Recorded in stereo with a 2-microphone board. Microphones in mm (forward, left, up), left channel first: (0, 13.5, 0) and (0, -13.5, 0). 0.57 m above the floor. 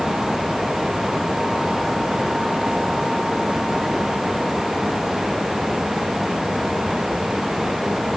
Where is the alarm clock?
No alarm clock in this recording.